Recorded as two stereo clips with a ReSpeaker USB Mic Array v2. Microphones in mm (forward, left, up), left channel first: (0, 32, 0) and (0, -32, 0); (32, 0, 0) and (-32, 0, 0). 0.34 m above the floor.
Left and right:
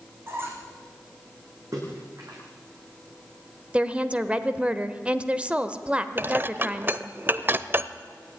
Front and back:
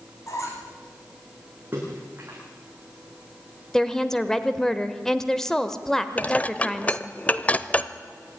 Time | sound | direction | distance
0.3 | a squeak | 35° right | 4 m
1.7 | a splash | 120° right | 7.5 m
3.7 | a woman speaking | 65° right | 1.0 m
6.2 | dishes clattering | 55° right | 0.7 m